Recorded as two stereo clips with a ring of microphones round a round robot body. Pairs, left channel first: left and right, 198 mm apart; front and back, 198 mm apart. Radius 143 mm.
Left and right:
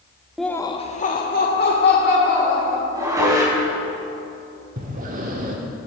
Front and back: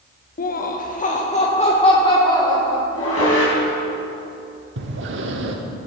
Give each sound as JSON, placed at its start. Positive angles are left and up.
{"t": 0.4, "sound": "laughter", "azimuth_deg": 0, "distance_m": 0.7}
{"t": 2.9, "sound": "dishes clattering", "azimuth_deg": -15, "distance_m": 4.0}
{"t": 4.8, "sound": "breathing", "azimuth_deg": -145, "distance_m": 1.0}